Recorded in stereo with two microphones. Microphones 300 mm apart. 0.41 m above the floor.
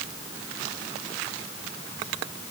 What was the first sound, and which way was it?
Only background noise.